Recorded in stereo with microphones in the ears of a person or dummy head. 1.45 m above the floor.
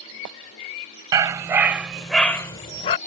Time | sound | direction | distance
1.1 | a dog barking | 20° right (ahead or behind) | ?